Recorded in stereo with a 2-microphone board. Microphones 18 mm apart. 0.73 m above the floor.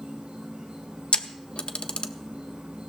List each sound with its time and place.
0.0 s an insect: 55° right (ahead or behind), 3.5 m
1.1 s a camera shutter: 65° left (ahead or behind), 0.6 m